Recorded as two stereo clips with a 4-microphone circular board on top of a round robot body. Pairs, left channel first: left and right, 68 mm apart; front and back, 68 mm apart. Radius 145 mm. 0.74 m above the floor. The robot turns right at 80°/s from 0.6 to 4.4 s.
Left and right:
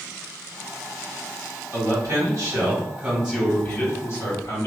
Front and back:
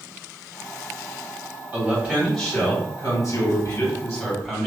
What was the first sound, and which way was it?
A man speaking, 135° right.